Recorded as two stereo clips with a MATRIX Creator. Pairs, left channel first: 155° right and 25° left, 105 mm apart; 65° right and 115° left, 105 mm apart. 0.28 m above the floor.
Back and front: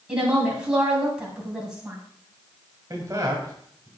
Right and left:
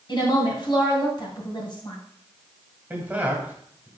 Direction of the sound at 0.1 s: 55° right.